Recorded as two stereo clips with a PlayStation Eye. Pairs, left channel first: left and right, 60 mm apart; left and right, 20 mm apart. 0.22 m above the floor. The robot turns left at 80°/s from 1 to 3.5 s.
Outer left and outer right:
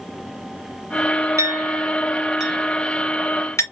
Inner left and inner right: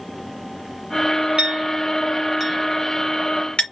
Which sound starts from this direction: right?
A clink, at 1.4 s.